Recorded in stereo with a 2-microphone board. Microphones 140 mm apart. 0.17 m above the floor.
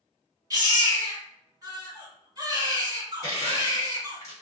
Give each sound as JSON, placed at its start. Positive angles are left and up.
{"t": 0.5, "sound": "a baby crying", "side_deg": -30, "distance_m": 1.8}
{"t": 3.2, "sound": "crushing", "side_deg": 25, "distance_m": 1.4}